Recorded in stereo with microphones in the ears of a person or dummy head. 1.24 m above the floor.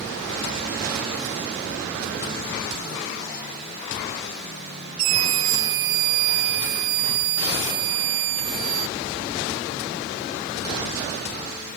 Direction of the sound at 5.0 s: 70° right (ahead or behind).